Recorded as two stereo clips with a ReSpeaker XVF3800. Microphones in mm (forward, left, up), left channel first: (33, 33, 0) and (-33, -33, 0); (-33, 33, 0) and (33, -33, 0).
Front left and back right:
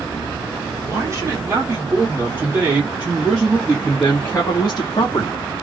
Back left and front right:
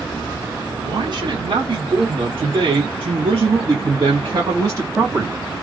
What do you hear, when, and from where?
0.8 s a man speaking: 85° right, 2.0 m; by 5.4 s 10° left, 1.2 m